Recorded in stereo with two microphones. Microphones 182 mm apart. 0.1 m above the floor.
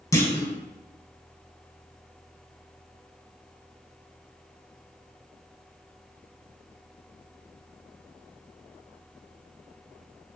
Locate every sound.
0.1 s a clunk: 15° left (ahead or behind), 0.5 m